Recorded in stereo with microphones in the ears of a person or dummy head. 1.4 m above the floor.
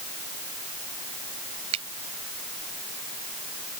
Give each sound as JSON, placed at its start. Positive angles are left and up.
{"t": 1.7, "sound": "a finger snap", "side_deg": -35}